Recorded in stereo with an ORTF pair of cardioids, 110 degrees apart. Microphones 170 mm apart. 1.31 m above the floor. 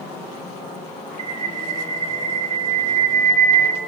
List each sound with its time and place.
1.2 s a bird: 45° right, 3 m